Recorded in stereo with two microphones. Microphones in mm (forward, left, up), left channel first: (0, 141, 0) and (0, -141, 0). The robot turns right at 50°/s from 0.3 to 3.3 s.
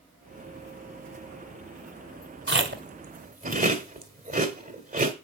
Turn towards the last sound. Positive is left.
turn(degrees=-30)  # may be behind; listen again after turning